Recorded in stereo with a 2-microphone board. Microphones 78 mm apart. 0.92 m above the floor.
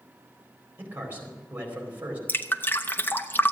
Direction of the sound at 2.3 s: 25° left (ahead or behind).